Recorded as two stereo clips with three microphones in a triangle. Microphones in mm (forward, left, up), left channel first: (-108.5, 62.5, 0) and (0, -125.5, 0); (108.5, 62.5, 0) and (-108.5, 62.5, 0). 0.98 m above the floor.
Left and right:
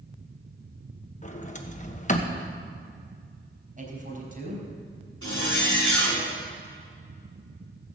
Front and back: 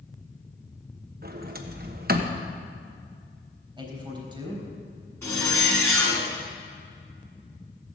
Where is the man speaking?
110° right, 4 m.